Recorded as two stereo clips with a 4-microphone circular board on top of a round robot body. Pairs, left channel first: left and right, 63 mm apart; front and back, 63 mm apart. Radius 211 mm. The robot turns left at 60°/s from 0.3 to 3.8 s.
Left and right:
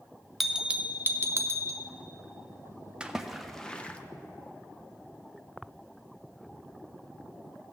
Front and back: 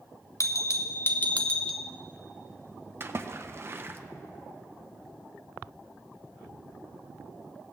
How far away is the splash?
About 1.0 m.